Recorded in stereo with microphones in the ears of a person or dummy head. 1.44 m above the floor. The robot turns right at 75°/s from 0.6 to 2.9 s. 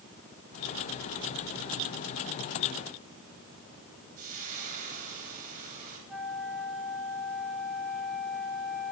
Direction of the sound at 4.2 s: 50° right (ahead or behind).